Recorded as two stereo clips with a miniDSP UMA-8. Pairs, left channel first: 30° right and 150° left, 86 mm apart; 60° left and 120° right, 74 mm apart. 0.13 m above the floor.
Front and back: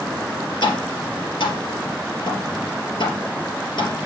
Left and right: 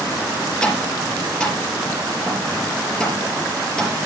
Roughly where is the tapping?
Ahead.